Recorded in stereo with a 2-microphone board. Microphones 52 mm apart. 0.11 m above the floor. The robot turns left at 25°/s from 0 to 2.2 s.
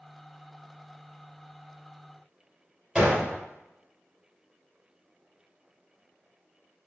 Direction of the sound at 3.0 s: 5° right (ahead or behind).